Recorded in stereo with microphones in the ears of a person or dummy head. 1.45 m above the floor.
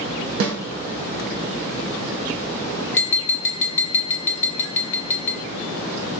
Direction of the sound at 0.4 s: 65° right (ahead or behind).